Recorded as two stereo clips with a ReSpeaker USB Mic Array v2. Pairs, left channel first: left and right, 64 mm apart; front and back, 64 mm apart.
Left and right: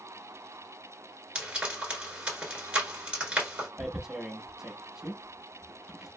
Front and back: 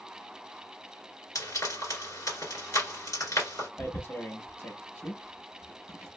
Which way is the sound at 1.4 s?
20° right.